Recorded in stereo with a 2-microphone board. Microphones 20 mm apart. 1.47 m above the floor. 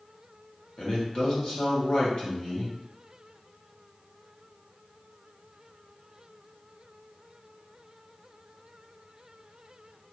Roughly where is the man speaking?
Left.